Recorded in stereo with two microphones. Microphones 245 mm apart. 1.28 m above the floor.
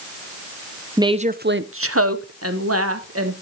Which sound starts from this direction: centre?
A woman speaking, at 1.0 s.